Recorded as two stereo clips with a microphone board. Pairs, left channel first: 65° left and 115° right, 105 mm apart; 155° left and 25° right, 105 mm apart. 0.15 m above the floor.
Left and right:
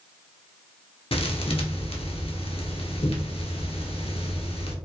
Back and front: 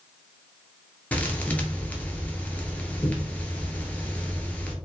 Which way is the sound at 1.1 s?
85° left.